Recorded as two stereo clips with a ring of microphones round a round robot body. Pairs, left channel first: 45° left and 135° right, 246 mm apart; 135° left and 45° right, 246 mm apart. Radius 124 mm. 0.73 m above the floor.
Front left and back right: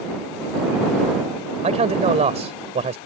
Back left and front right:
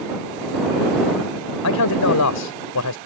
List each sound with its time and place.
1.6 s a man speaking: 160° left